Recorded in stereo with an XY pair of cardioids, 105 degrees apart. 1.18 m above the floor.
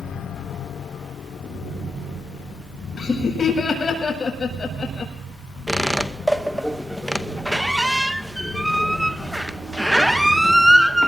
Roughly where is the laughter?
Ahead left.